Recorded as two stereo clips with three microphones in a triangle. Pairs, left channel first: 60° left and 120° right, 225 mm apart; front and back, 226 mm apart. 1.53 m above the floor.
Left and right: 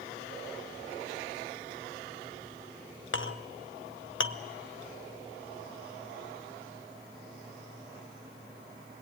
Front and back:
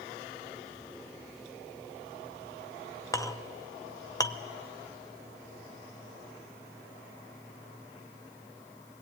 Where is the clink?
75° left, 0.8 m.